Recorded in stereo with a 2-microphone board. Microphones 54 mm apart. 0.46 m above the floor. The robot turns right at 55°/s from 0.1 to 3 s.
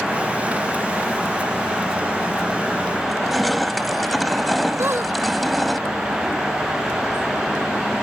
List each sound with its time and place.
3.0 s crushing: centre (ahead or behind)
4.8 s a squeak: 50° right (ahead or behind)